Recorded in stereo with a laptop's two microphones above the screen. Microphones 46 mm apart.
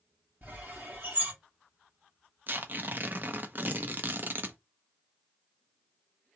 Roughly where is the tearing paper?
Right.